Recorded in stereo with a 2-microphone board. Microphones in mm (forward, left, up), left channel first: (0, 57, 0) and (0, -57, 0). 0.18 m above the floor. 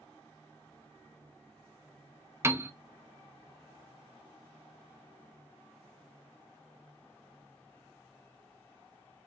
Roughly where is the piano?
Right.